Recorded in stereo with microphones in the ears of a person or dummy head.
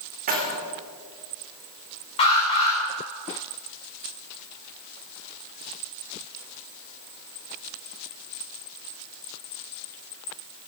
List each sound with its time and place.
0.3 s keys jangling: 45° right (ahead or behind), 3.5 m
2.2 s an alarm: 35° left (ahead or behind), 5.5 m